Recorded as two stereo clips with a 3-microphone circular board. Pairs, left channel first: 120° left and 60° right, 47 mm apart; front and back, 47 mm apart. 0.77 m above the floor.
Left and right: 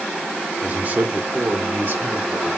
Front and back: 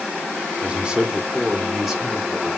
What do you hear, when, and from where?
0.6 s a man speaking: 115° right, 1.3 m; by 2.5 s 90° right, 2.5 m